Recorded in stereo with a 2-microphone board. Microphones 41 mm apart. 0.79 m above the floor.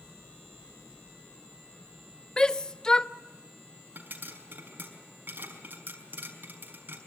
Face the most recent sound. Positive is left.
turn(degrees=-50)  # may be behind; listen again after turning